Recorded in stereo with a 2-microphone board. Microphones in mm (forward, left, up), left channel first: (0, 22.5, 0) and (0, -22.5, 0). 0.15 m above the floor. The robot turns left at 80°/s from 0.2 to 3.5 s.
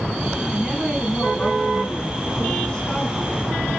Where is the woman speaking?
20° right (ahead or behind), 1.3 m; by 3.7 s 10° right (ahead or behind), 1.3 m.